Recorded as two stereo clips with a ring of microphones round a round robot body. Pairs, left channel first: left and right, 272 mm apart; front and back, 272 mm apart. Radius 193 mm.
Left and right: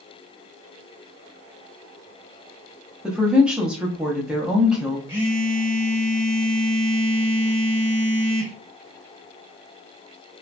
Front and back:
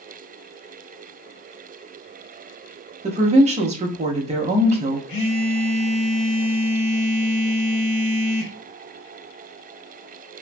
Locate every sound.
3.0 s a woman speaking: 170° right, 0.6 m
5.1 s a phone buzzing: 10° right, 1.5 m